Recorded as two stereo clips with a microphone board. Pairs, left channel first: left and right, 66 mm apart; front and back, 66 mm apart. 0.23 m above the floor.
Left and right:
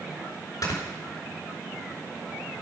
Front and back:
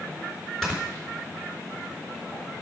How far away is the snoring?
About 3.5 m.